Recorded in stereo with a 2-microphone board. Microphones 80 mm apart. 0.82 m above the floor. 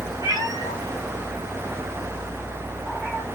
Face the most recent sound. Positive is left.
turn(degrees=-20)  # may be behind; listen again after turning